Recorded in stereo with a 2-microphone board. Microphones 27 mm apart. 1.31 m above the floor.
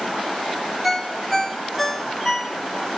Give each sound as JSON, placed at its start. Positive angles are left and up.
{"t": 0.8, "sound": "a ringtone", "side_deg": 5, "distance_m": 0.9}